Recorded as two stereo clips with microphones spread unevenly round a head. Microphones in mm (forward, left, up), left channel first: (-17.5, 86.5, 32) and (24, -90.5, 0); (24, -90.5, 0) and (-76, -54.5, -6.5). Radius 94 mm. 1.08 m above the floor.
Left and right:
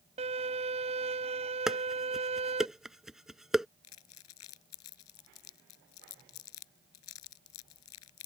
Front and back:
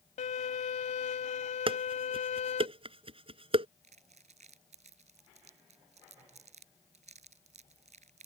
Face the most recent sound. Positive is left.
turn(degrees=105)